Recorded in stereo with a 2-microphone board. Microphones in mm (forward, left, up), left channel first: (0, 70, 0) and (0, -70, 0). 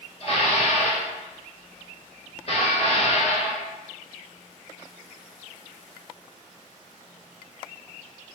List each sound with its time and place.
0.2 s dishes clattering: 50° left (ahead or behind), 1.3 m